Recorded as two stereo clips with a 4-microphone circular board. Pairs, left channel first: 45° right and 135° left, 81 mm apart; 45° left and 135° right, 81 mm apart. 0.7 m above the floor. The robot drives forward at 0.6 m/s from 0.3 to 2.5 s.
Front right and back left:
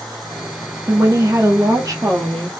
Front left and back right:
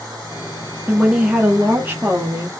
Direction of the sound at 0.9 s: 155° left.